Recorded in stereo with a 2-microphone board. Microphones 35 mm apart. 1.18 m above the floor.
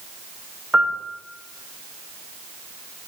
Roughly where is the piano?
Right.